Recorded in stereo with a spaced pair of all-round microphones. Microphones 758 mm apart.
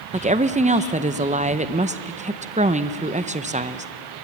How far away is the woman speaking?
About 0.6 m.